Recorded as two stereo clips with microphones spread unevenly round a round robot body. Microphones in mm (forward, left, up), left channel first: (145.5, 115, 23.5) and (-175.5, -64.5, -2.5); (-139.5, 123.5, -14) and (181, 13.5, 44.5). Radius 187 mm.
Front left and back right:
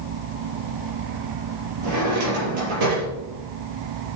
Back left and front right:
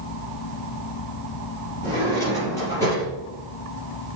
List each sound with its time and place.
1.8 s a drawer: 115° right, 5.5 m